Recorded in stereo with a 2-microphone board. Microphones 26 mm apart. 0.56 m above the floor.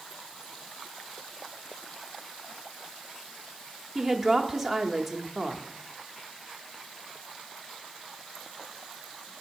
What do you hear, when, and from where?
4.0 s a woman speaking: 10° right (ahead or behind), 0.8 m